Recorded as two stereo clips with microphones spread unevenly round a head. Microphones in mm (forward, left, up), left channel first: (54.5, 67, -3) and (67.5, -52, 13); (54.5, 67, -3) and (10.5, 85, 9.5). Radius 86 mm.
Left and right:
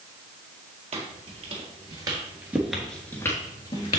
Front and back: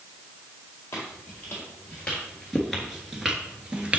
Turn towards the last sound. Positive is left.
turn(degrees=130)